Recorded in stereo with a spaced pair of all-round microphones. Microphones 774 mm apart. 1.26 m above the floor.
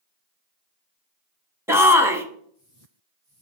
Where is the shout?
5° right (ahead or behind), 1.0 m.